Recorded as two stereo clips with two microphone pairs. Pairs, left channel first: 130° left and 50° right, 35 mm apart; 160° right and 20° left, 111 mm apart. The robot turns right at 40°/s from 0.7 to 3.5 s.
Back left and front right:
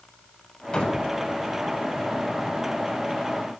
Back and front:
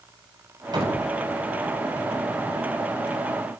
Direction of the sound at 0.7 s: 70° left.